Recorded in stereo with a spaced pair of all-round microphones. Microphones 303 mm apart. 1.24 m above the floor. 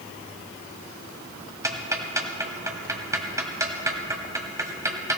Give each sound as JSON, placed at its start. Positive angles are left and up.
{"t": 1.6, "sound": "ticking", "side_deg": -10, "distance_m": 1.6}